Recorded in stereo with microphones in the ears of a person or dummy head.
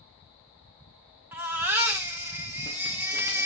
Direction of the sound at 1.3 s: 10° right (ahead or behind).